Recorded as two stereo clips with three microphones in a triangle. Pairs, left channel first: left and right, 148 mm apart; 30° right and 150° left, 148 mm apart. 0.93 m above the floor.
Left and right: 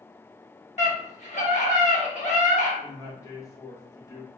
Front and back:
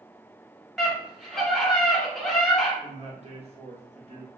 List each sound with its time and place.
0.8 s a scream: 60° left, 1.5 m
2.8 s a man speaking: 145° left, 1.0 m